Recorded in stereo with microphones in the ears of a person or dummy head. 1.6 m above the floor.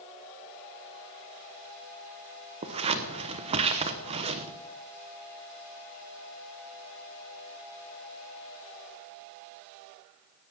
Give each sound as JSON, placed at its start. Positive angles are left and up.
{"t": 2.6, "sound": "scissors", "side_deg": -30, "distance_m": 1.0}